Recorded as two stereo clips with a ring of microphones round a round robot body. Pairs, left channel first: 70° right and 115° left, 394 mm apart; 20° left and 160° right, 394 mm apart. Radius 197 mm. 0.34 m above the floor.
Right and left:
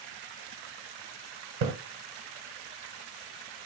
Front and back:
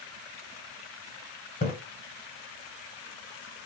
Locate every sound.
1.6 s a splash: 95° left, 0.8 m